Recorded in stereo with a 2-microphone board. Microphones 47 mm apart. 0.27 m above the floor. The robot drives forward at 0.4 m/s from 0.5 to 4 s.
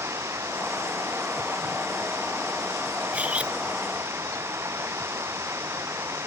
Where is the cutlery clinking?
30° right (ahead or behind).